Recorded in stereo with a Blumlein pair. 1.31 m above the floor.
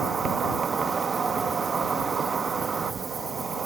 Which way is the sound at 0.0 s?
15° right.